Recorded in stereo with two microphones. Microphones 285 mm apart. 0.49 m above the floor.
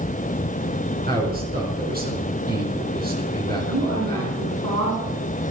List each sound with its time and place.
1.1 s a man speaking: 30° right (ahead or behind), 4.5 m
3.7 s a woman speaking: 70° right (ahead or behind), 5.5 m